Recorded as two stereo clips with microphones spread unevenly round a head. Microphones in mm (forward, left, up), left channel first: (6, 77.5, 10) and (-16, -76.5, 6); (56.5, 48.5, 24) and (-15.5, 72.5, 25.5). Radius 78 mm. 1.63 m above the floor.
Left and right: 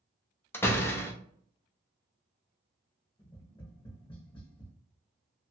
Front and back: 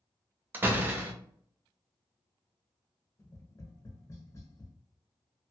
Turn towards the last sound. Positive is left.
turn(degrees=25)